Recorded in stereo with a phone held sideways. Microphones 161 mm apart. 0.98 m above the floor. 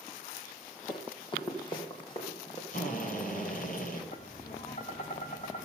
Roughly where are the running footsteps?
Left.